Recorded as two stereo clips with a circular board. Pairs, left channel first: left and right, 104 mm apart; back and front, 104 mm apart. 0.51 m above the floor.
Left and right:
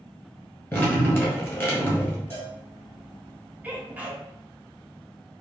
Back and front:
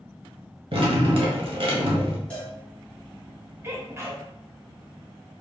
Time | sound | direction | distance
0.7 | dripping | 25° left | 1.3 m
2.3 | a cowbell | 120° left | 1.2 m
3.6 | a sneeze | 30° right | 0.8 m